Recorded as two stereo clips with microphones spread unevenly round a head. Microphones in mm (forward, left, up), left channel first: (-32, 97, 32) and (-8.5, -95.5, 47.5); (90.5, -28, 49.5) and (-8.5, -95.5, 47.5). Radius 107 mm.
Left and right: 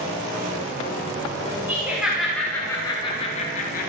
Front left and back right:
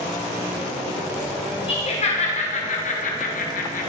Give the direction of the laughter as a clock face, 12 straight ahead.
12 o'clock.